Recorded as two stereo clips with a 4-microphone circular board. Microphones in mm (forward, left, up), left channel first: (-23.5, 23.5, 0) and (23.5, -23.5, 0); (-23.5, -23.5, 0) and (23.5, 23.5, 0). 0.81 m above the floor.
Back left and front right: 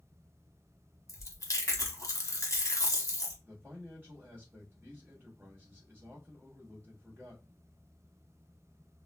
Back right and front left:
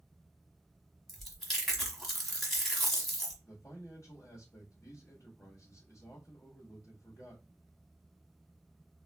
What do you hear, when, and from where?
1.1 s chewing: 140° left, 0.9 m
3.4 s a man speaking: 105° right, 1.1 m